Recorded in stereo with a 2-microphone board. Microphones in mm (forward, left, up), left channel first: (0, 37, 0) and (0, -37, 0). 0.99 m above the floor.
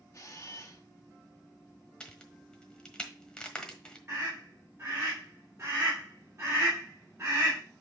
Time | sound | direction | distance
0.1 | a camera shutter | 45° left (ahead or behind) | 1.3 m
2.0 | a crack | 10° left (ahead or behind) | 1.3 m
4.1 | a scream | 35° right (ahead or behind) | 3 m